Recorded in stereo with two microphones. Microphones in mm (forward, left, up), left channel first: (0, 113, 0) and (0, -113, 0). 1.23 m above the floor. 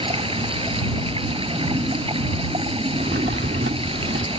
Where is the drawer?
55° right (ahead or behind).